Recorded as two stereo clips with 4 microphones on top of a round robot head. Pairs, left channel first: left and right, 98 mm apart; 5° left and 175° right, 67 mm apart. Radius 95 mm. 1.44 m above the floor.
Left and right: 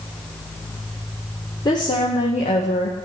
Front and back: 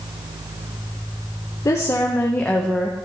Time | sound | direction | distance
1.6 | a woman speaking | 40° left | 1.0 m